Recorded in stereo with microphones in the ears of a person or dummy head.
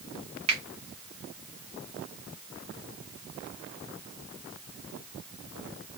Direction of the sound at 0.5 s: 30° right (ahead or behind).